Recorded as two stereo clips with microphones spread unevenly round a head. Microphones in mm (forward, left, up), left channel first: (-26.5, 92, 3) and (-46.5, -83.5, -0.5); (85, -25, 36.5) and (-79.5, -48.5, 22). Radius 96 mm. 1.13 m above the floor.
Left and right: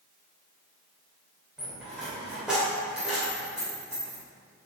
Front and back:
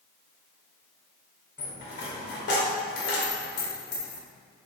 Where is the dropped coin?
10° right, 2 m.